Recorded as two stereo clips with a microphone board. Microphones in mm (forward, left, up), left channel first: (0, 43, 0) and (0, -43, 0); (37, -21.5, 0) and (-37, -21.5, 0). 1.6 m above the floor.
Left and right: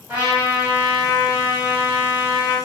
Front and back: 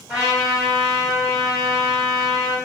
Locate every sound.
0.1 s a trumpet: 110° right, 1.5 m